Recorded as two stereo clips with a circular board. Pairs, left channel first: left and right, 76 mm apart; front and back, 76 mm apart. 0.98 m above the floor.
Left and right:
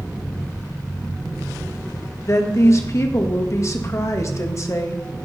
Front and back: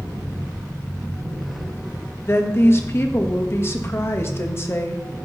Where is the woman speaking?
50° left, 1.2 m.